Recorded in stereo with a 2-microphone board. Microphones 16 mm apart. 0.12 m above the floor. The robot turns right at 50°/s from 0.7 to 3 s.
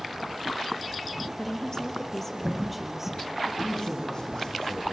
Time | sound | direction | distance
1.4 | a woman speaking | 115° left | 2.5 m
3.6 | a man speaking | 35° left (ahead or behind) | 5.5 m